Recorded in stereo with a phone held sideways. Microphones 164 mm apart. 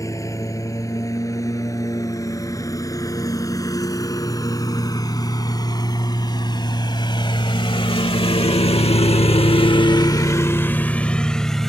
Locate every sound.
0.0 s a lawn mower: 20° left (ahead or behind); by 11.7 s centre (ahead or behind)